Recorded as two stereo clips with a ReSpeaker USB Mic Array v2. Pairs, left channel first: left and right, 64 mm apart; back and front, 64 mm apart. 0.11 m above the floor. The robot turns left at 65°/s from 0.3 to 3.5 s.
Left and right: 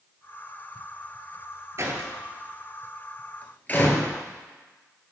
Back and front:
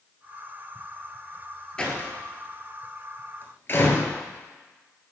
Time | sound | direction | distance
1.8 | a door slam | 105° right | 1.4 m